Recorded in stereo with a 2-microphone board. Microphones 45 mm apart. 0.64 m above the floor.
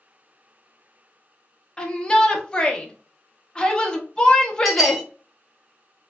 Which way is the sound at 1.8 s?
20° left (ahead or behind).